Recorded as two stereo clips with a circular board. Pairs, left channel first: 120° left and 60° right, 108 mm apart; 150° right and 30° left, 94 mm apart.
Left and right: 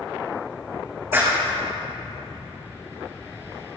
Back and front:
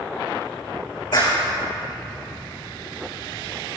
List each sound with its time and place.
1.1 s a clap: 125° right, 4.5 m